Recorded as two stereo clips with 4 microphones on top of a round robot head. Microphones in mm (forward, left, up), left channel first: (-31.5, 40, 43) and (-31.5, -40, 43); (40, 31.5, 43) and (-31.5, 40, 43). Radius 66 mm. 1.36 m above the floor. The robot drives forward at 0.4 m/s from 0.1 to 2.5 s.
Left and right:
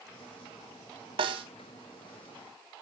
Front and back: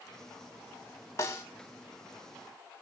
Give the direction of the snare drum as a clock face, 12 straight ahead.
2 o'clock.